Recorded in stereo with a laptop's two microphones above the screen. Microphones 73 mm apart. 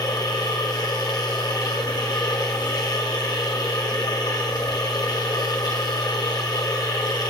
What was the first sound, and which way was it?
A machine running, 70° left (ahead or behind).